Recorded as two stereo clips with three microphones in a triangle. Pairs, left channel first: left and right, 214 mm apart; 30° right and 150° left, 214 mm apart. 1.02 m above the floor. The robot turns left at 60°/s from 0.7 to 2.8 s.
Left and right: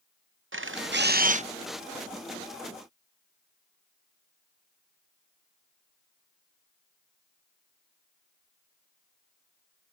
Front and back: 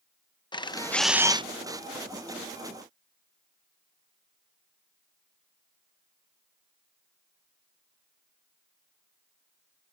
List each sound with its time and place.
0.5 s a camera shutter: 100° right; by 1.4 s 145° right